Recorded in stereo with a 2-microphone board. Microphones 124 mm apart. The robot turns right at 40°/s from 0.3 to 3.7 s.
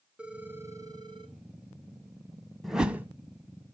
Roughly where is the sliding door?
No sliding door in this recording.